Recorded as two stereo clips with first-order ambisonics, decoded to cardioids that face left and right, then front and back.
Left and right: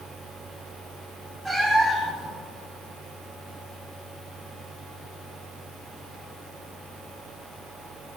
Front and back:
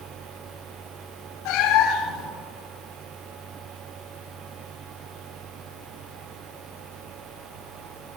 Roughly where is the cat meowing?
Ahead.